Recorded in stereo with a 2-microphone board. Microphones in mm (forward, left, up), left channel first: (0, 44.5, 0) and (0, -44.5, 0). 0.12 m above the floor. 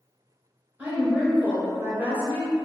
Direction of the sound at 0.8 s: 20° right (ahead or behind).